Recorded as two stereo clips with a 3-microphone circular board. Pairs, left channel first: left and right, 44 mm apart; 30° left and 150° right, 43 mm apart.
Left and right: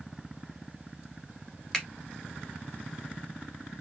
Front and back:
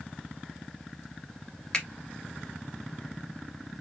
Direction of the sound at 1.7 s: 30° left.